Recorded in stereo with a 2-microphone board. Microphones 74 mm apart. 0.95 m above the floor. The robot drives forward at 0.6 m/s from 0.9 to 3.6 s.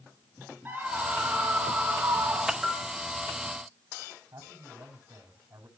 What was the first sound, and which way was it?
A scream, 30° right (ahead or behind).